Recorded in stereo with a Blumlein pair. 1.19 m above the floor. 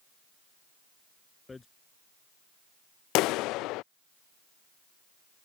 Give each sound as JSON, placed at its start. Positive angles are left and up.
{"t": 1.5, "sound": "hammering", "azimuth_deg": 10}
{"t": 3.1, "sound": "a clap", "azimuth_deg": 40}